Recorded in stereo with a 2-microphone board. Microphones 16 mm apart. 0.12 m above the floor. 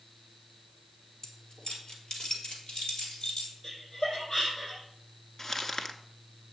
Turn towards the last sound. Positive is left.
turn(degrees=35)  # may be behind; listen again after turning